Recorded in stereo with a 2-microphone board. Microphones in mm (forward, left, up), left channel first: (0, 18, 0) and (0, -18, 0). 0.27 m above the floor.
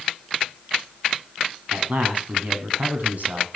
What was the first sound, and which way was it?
A man speaking, 55° right (ahead or behind).